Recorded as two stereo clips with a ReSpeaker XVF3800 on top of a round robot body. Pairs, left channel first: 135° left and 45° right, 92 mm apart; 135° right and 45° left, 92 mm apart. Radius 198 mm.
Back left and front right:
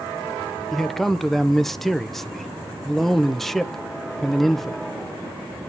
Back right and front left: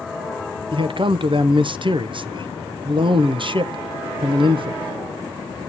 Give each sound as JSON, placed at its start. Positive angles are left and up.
{"t": 0.7, "sound": "a man speaking", "azimuth_deg": 50, "distance_m": 1.0}